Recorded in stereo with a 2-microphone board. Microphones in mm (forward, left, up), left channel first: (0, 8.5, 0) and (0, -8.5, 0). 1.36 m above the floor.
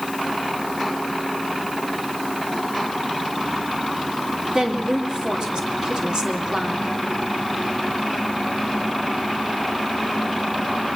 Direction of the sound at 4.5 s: 45° right (ahead or behind).